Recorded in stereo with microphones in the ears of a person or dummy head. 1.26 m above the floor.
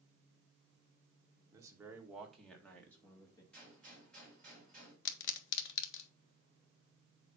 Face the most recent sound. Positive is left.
turn(degrees=65)  # may be behind; listen again after turning